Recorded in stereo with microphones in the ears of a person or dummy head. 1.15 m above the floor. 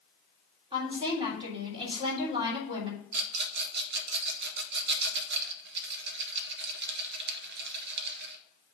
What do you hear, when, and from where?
0.7 s a woman speaking: 25° right (ahead or behind), 3 m
3.1 s a rattle: 55° right (ahead or behind), 0.8 m